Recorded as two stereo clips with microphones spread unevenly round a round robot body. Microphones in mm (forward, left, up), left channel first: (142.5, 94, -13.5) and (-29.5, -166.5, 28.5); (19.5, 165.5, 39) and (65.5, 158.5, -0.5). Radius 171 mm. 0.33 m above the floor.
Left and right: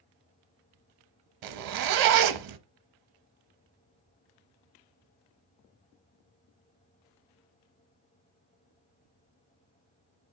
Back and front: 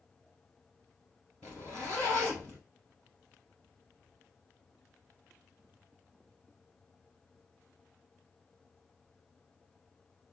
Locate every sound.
1.4 s a zipper: 100° right, 0.6 m